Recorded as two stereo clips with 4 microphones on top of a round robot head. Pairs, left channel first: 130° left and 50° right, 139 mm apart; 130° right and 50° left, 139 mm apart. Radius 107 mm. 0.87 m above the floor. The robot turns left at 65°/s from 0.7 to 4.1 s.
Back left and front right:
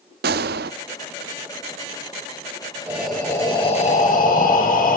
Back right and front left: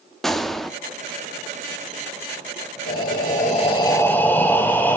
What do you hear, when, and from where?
0.2 s a gunshot: 45° right, 0.5 m
2.9 s breathing: 130° right, 3.5 m; by 5.0 s 150° left, 3.5 m